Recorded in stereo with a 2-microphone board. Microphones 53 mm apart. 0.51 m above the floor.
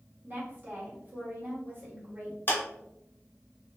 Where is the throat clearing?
I don't hear throat clearing.